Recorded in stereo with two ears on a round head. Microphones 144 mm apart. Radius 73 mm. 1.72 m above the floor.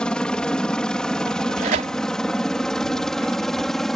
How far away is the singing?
No singing in this recording.